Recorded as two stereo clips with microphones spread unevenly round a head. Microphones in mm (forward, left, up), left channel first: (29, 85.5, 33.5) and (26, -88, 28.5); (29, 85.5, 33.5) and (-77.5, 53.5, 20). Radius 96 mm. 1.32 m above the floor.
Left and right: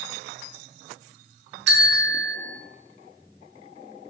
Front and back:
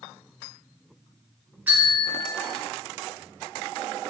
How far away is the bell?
About 0.6 m.